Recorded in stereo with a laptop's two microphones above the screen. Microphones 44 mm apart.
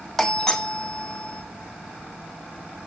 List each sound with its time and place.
0.2 s a doorbell: 15° left (ahead or behind), 0.9 m